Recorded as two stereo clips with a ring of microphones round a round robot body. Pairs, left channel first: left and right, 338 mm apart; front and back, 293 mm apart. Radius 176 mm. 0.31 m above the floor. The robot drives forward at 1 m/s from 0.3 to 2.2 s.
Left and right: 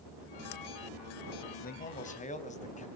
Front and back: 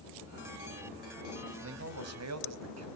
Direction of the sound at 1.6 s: 150° left.